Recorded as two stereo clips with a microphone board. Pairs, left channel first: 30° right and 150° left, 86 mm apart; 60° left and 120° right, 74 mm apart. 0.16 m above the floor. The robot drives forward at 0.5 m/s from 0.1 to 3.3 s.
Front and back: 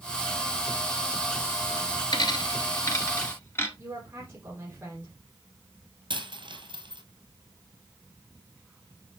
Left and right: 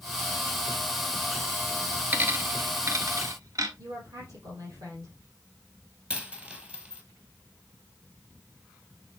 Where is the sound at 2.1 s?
60° right, 1.4 m; by 3.7 s 90° right, 1.2 m.